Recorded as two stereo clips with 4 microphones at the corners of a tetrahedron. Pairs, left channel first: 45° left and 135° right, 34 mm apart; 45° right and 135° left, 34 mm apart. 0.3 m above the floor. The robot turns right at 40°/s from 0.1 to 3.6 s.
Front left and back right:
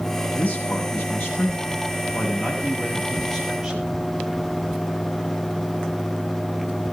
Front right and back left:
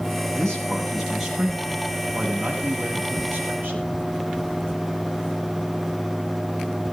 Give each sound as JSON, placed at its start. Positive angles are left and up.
{"t": 0.3, "sound": "a man speaking", "azimuth_deg": 15, "distance_m": 8.5}